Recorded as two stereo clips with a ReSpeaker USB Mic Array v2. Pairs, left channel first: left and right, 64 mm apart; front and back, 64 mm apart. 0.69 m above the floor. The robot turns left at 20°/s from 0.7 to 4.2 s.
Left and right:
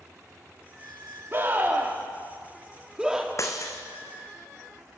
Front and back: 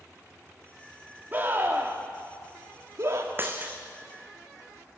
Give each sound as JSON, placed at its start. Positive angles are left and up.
{"t": 1.3, "sound": "a scream", "azimuth_deg": -130, "distance_m": 1.5}
{"t": 3.4, "sound": "breaking glass", "azimuth_deg": 125, "distance_m": 2.0}